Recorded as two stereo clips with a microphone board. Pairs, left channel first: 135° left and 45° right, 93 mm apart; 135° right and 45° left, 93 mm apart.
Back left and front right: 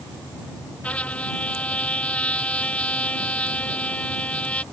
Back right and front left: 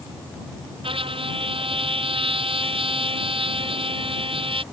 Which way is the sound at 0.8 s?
60° left.